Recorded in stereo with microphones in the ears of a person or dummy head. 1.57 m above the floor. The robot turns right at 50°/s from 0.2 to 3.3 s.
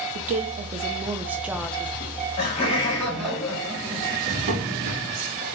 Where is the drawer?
30° right (ahead or behind), 0.7 m.